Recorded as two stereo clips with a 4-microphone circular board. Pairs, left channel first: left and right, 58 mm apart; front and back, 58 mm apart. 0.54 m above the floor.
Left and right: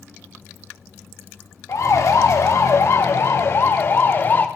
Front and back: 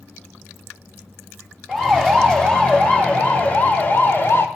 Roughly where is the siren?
Left.